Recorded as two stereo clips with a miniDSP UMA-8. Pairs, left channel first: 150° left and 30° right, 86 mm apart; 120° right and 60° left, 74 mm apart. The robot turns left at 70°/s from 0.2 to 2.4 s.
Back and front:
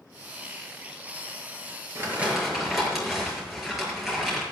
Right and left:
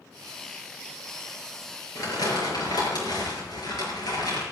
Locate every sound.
1.9 s crumpling: 85° right, 6.5 m; by 4.4 s 115° right, 6.5 m